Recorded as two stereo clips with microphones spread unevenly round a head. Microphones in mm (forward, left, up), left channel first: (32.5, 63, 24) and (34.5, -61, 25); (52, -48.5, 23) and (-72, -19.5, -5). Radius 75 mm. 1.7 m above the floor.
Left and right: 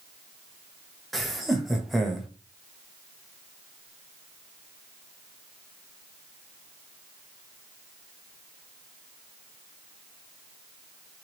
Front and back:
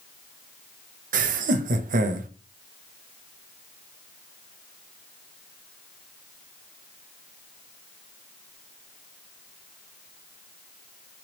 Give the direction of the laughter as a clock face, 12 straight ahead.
6 o'clock.